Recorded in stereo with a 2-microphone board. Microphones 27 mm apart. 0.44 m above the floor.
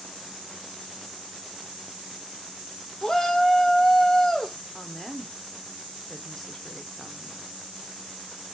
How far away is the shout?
About 0.7 m.